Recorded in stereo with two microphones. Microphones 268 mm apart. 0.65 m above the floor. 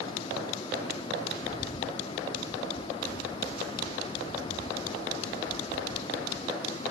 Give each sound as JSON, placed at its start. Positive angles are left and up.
{"t": 1.4, "sound": "a bird", "side_deg": 35}